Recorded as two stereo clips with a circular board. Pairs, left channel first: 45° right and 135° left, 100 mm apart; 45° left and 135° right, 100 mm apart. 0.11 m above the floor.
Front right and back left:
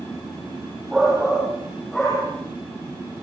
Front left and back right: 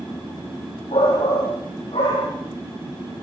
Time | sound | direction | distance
0.9 | a shout | 50° left | 4 m